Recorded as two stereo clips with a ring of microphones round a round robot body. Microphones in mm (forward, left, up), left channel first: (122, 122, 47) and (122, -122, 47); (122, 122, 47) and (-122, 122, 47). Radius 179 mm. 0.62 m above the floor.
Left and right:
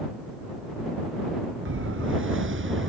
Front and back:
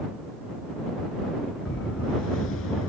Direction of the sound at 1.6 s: 55° right.